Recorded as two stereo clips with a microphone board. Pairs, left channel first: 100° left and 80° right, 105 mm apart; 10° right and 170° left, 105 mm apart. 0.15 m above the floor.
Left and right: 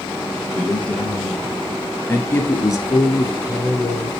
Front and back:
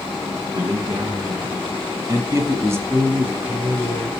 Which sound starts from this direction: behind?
A man speaking, at 0.5 s.